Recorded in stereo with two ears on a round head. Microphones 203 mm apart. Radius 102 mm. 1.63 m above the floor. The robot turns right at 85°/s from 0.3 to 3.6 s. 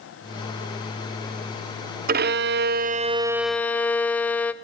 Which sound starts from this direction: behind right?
A violin, at 2.1 s.